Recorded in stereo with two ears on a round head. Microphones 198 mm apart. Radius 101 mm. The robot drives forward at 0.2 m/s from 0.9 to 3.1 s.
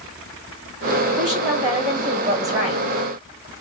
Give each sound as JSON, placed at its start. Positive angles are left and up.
{"t": 1.2, "sound": "a woman speaking", "side_deg": -5, "distance_m": 1.2}